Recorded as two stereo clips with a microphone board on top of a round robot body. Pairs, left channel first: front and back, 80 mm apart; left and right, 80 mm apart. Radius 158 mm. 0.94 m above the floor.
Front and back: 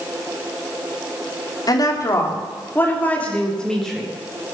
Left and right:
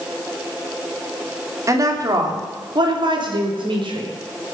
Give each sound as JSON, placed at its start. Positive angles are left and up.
{"t": 1.7, "sound": "a woman speaking", "azimuth_deg": -40, "distance_m": 3.0}